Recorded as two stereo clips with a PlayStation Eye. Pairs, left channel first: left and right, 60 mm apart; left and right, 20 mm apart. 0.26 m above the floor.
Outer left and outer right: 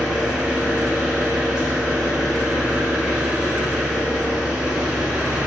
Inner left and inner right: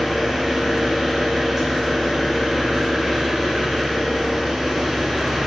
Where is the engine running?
15° right (ahead or behind), 1.1 m.